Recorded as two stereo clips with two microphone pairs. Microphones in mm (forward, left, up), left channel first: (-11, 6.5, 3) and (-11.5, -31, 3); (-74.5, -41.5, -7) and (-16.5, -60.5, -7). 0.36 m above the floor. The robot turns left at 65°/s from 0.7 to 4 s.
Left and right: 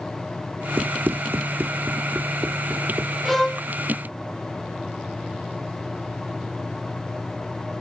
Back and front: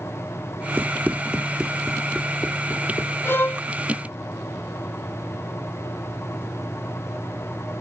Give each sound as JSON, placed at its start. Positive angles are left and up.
{"t": 0.8, "sound": "running footsteps", "azimuth_deg": -75}
{"t": 3.2, "sound": "a violin", "azimuth_deg": 170}